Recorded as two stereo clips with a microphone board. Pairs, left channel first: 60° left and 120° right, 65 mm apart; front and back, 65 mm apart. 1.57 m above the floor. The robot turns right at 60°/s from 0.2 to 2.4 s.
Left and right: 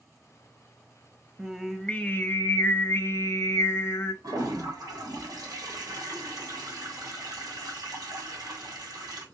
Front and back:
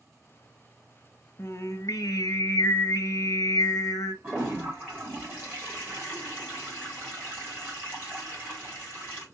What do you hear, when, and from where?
1.4 s singing: 50° right, 0.5 m; by 4.1 s 10° left, 0.5 m
4.2 s a toilet flushing: 125° right, 2.0 m